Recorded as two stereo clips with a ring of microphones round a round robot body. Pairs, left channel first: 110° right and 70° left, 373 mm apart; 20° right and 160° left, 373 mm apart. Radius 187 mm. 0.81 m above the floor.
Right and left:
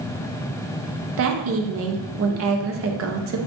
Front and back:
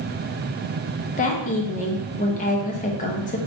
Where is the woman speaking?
35° left, 0.5 m.